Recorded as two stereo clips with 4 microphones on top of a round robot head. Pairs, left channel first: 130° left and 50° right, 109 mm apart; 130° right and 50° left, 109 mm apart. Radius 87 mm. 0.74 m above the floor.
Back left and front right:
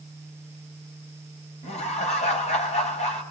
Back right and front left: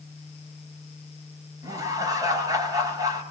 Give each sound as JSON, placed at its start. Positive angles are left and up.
{"t": 1.6, "sound": "laughter", "azimuth_deg": 110, "distance_m": 5.0}